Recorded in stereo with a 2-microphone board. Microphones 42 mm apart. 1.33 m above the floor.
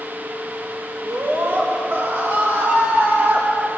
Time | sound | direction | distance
1.0 | a scream | 75° right (ahead or behind) | 6 m